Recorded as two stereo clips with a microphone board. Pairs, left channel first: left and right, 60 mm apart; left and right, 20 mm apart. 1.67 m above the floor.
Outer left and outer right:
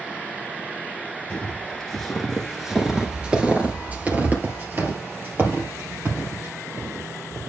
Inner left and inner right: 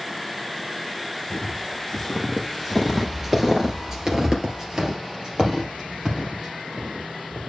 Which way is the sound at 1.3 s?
20° left (ahead or behind).